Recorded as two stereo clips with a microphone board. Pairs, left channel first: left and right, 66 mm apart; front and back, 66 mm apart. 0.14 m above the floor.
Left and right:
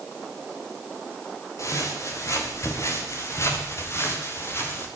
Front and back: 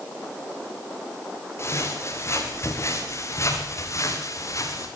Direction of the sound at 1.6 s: 50° left.